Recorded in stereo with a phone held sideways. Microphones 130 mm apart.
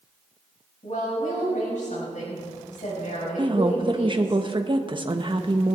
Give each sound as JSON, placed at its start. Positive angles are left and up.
{"t": 0.8, "sound": "a woman speaking", "side_deg": 70, "distance_m": 5.5}
{"t": 3.4, "sound": "a woman speaking", "side_deg": -40, "distance_m": 0.9}